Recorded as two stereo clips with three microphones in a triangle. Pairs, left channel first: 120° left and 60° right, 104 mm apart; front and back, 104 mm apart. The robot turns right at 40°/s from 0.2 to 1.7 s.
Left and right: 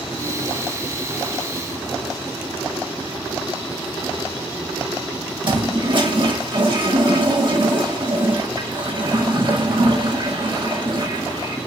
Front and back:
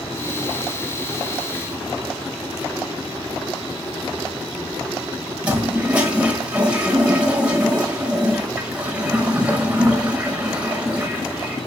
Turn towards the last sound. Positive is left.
turn(degrees=-100)